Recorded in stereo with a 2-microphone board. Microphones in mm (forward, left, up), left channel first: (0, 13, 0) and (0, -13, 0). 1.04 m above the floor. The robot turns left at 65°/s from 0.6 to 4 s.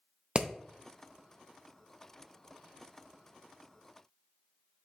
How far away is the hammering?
About 0.6 m.